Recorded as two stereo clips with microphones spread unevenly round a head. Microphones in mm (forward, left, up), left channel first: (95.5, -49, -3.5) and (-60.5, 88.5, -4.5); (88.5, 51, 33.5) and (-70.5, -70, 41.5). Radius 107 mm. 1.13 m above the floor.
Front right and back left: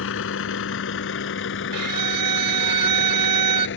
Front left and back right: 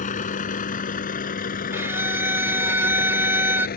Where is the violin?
140° left.